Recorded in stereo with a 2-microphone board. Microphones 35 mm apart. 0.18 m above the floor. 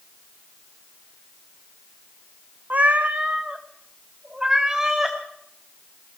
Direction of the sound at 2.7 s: 55° right (ahead or behind).